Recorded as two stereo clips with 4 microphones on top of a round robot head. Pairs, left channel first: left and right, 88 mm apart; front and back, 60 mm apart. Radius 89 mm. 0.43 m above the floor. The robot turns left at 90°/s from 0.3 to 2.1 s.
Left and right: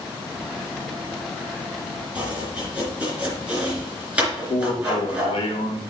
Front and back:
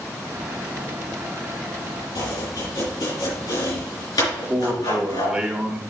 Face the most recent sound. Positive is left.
turn(degrees=100)